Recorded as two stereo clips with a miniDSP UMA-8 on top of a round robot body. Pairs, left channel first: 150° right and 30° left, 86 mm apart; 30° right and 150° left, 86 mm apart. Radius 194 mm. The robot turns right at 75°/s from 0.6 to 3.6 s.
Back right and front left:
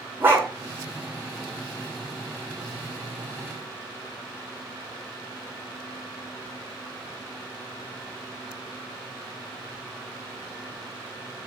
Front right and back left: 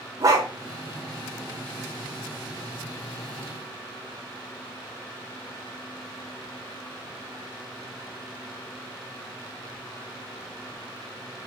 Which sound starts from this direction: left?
A dog barking, at 0.2 s.